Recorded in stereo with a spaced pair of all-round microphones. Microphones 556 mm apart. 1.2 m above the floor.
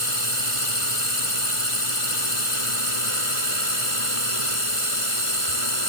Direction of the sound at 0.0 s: 65° left (ahead or behind).